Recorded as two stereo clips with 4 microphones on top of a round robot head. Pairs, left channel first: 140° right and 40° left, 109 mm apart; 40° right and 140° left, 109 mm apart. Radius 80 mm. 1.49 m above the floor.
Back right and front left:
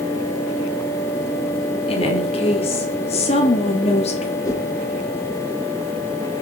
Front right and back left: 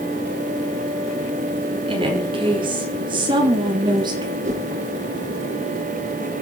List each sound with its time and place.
1.9 s a woman speaking: 175° right, 5.5 m; by 4.3 s 170° right, 4 m
4.4 s a whoosh: 160° left, 4.5 m